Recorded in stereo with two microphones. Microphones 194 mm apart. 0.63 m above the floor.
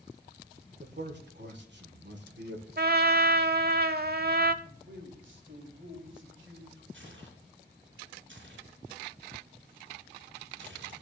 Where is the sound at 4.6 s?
75° right (ahead or behind), 2.5 m.